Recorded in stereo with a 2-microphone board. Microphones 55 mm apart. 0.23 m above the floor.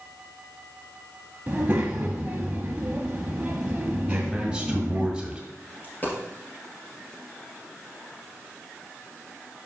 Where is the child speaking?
25° right (ahead or behind), 0.6 m.